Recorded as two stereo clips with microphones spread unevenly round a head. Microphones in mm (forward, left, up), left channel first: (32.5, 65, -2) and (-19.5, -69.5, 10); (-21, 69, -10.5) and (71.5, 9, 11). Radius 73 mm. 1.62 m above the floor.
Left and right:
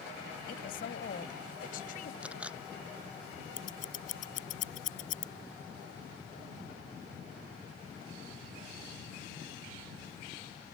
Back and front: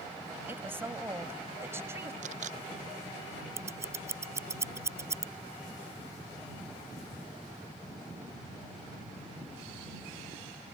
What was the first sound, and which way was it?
A woman speaking, 35° left.